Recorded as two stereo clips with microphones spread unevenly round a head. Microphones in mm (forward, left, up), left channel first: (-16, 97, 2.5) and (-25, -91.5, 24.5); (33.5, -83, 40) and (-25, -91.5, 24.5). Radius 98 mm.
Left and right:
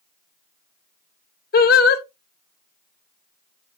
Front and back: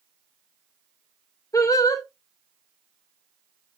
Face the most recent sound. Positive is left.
turn(degrees=45)